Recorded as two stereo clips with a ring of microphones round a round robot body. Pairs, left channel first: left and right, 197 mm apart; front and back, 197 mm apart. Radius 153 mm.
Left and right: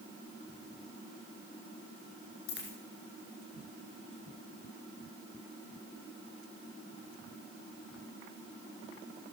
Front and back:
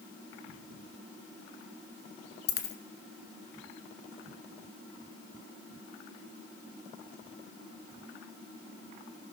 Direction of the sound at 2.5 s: 35° left.